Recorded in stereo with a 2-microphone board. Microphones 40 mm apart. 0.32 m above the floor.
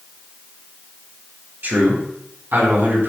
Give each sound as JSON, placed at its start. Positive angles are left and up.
{"t": 1.6, "sound": "a man speaking", "side_deg": -50, "distance_m": 2.5}